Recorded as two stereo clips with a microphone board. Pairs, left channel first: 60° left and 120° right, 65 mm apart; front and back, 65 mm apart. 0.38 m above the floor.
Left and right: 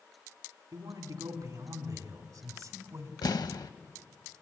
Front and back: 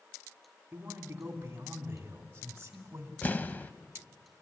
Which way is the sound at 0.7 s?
120° right.